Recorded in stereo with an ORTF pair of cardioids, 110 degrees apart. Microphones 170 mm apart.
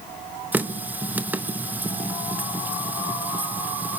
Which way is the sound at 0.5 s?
10° right.